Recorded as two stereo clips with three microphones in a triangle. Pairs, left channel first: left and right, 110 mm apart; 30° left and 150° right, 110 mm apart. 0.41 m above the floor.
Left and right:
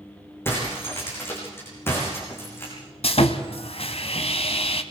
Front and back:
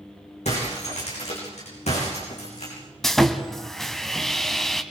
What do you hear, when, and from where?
0.5 s breaking glass: 20° left, 8.5 m
3.0 s sawing: 120° left, 1.4 m